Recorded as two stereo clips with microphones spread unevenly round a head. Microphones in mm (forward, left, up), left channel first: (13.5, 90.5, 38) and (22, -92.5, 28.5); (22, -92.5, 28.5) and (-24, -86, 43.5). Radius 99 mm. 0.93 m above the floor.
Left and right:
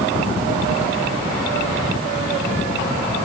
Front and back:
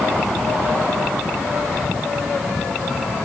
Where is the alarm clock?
I don't hear an alarm clock.